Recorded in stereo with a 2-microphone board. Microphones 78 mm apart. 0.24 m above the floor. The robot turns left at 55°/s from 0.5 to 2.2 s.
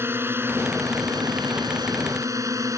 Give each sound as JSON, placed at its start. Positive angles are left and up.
{"t": 0.0, "sound": "a drone", "azimuth_deg": -35}